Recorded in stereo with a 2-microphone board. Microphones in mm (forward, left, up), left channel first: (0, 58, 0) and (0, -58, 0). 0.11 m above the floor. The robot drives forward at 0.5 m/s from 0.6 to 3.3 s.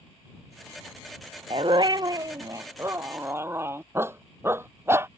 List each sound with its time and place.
1.5 s a dog barking: 50° right (ahead or behind); by 5.1 s 20° right (ahead or behind)